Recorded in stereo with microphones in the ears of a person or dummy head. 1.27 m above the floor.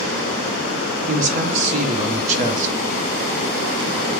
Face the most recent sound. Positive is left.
turn(degrees=-40)  # may be behind; listen again after turning